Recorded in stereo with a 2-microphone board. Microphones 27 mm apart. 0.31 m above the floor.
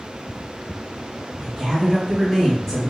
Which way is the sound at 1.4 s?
35° right (ahead or behind).